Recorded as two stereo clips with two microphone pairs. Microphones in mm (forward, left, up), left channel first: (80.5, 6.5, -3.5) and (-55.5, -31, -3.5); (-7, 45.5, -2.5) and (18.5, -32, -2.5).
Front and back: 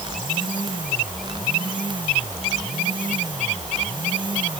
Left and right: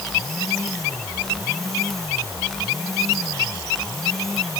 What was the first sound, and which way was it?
Only background noise.